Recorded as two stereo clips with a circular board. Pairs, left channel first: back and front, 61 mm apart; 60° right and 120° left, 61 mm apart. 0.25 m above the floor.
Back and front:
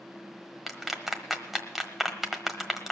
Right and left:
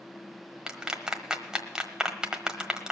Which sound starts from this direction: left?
A clap, at 0.7 s.